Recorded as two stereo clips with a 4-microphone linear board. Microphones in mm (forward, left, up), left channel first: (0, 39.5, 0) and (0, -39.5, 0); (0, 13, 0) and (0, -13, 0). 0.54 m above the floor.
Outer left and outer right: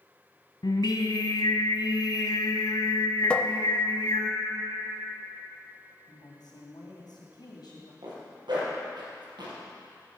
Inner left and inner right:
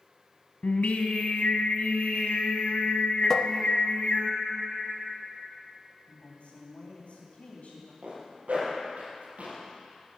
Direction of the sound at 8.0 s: 80° right.